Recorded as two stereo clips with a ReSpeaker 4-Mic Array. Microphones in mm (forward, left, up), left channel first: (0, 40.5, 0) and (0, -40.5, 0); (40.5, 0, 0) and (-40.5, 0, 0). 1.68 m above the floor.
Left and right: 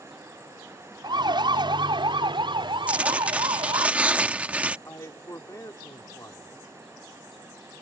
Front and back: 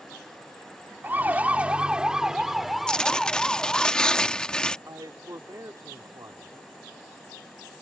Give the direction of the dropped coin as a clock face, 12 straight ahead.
No dropped coin in this recording.